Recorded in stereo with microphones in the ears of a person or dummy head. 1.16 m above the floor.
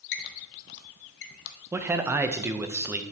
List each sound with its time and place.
0.1 s a squeak: 65° left (ahead or behind), 0.7 m
1.7 s a man speaking: 15° right (ahead or behind), 0.5 m